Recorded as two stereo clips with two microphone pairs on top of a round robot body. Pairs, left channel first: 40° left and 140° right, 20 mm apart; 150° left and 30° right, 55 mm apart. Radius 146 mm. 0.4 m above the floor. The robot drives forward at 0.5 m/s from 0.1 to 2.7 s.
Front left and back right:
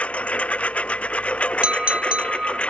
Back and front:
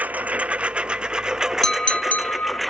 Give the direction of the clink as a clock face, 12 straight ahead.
4 o'clock.